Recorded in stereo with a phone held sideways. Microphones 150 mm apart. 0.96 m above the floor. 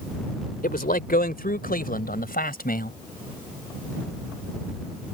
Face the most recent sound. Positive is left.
turn(degrees=75)  # may be behind; listen again after turning